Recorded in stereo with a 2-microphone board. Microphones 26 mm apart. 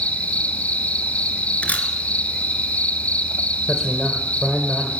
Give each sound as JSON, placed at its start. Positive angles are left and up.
{"t": 0.0, "sound": "an insect", "side_deg": 70, "distance_m": 0.8}
{"t": 1.6, "sound": "a camera shutter", "side_deg": 65, "distance_m": 1.6}
{"t": 3.7, "sound": "a man speaking", "side_deg": 20, "distance_m": 1.8}